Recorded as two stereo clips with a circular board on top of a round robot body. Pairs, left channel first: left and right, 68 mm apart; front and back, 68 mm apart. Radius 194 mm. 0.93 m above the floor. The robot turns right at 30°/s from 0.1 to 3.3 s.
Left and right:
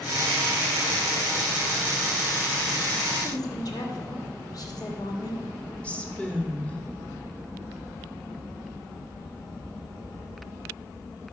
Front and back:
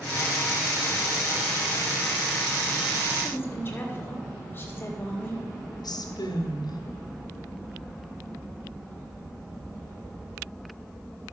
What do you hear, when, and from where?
3.2 s a woman speaking: 60° left, 2 m
5.8 s a woman speaking: 15° left, 1.6 m